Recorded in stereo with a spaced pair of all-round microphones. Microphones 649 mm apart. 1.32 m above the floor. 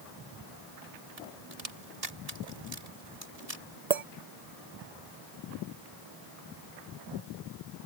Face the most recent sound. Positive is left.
turn(degrees=-70)  # may be behind; listen again after turning